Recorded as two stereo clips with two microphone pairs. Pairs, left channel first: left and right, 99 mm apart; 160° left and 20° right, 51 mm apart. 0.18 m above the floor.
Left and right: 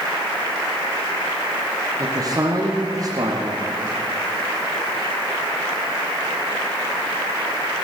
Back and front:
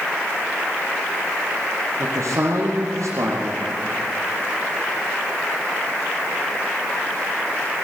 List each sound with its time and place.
2.0 s a man speaking: 35° right, 5 m